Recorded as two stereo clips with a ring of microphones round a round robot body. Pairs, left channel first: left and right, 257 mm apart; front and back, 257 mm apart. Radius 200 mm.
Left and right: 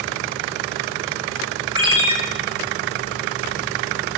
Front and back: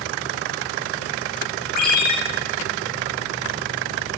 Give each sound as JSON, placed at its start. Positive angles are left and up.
{"t": 1.8, "sound": "a ringtone", "azimuth_deg": -20, "distance_m": 4.5}